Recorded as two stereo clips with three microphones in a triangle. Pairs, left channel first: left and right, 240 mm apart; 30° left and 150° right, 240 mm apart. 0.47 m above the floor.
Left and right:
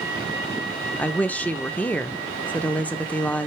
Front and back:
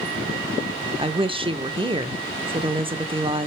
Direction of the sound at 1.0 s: 170° left.